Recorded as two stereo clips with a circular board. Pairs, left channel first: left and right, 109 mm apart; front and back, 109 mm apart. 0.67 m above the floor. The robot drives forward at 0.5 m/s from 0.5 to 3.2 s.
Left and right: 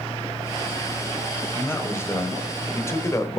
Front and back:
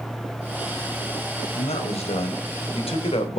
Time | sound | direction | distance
1.6 | a man speaking | 20° left | 3 m